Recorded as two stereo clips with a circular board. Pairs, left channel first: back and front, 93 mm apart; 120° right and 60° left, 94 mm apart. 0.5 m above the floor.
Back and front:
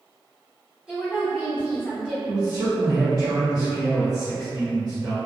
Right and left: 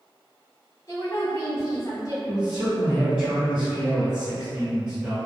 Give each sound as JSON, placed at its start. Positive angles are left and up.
{"t": 0.9, "sound": "a woman speaking", "azimuth_deg": -75, "distance_m": 1.0}
{"t": 2.2, "sound": "a man speaking", "azimuth_deg": -15, "distance_m": 1.5}